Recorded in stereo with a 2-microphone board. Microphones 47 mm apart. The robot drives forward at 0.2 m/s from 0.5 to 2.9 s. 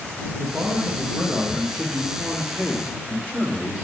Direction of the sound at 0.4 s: 40° right (ahead or behind).